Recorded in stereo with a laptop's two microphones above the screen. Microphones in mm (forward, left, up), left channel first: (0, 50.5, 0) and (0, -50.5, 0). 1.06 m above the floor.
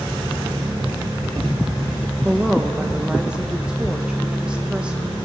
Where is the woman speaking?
10° right (ahead or behind), 0.6 m.